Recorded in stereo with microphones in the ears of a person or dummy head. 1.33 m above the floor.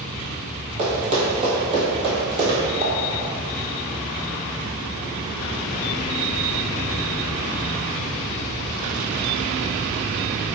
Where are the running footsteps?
45° right (ahead or behind), 1.9 m; by 2.6 s 25° right (ahead or behind), 2.0 m.